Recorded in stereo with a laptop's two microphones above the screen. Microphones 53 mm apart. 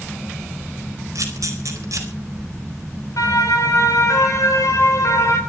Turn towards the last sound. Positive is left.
turn(degrees=75)  # may be behind; listen again after turning